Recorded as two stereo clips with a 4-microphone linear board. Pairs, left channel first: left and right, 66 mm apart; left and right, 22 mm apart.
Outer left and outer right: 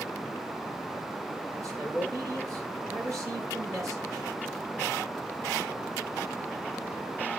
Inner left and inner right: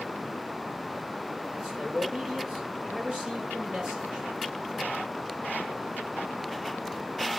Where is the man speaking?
50° right (ahead or behind), 7 m.